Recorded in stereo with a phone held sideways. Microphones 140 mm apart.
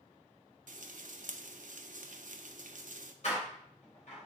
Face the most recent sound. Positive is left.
turn(degrees=55)  # may be behind; listen again after turning